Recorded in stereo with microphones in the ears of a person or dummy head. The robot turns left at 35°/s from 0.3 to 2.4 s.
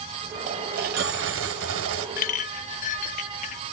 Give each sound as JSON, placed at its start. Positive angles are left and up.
{"t": 0.5, "sound": "a dropped coin", "azimuth_deg": -45, "distance_m": 2.5}
{"t": 2.2, "sound": "a clink", "side_deg": 45, "distance_m": 0.8}